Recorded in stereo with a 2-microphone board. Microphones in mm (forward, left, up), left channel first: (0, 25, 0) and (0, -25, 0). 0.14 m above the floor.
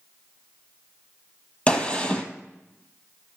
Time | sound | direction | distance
1.7 | a gunshot | 25° left (ahead or behind) | 1.6 m